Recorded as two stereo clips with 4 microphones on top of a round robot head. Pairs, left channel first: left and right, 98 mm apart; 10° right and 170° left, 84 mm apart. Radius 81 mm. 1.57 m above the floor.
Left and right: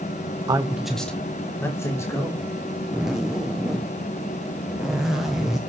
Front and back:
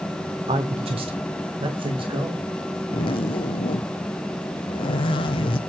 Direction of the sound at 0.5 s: 145° right.